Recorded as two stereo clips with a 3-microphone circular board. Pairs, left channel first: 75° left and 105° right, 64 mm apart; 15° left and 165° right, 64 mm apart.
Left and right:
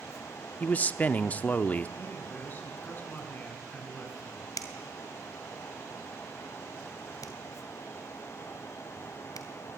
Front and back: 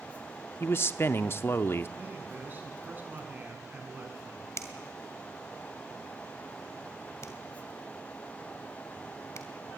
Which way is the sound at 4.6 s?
55° left.